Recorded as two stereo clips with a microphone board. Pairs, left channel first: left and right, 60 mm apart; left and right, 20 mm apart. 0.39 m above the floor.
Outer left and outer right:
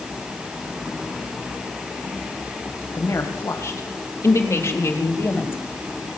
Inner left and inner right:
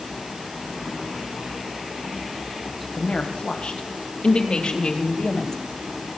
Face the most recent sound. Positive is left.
turn(degrees=40)  # may be behind; listen again after turning